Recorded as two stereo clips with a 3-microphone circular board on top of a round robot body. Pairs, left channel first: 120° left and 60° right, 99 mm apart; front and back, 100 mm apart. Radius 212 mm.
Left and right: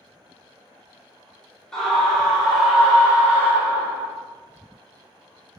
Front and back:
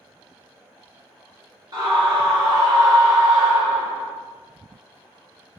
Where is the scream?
160° right, 1.7 m; by 4.1 s 115° right, 2 m.